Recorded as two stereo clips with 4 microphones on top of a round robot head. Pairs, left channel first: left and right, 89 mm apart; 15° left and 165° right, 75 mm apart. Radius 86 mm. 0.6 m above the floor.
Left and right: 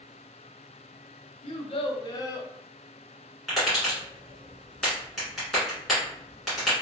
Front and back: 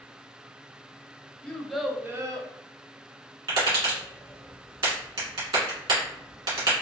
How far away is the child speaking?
About 0.8 m.